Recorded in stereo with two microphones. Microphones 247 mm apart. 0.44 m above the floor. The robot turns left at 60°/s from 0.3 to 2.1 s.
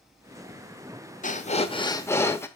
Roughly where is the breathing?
Left.